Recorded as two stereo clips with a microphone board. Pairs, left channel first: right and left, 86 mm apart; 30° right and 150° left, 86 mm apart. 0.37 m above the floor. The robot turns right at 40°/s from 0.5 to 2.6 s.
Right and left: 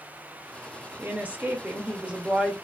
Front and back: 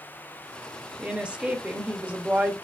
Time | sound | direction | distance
1.0 | a woman speaking | 85° left | 0.9 m